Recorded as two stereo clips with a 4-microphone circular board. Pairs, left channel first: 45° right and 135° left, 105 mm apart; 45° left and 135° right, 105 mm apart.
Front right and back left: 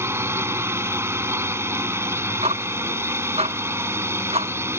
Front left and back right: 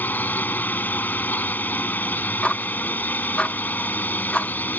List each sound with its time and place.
0.0 s a drone: 100° left
2.4 s ticking: 125° left